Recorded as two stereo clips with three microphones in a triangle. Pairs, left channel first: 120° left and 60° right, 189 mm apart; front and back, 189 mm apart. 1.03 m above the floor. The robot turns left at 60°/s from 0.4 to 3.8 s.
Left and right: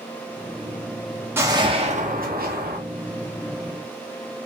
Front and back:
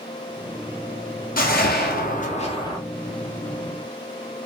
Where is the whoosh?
15° left, 0.7 m; by 2.8 s 70° right, 0.7 m.